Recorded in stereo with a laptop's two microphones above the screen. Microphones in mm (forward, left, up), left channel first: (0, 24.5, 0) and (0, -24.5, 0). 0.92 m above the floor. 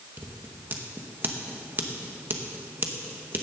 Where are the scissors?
40° right (ahead or behind), 1.0 m.